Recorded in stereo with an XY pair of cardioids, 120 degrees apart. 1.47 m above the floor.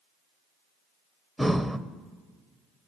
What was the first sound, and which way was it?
Breathing, straight ahead.